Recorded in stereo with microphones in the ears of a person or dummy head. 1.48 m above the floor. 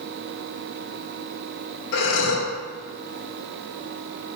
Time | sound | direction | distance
1.9 | breathing | 80° left | 2.5 m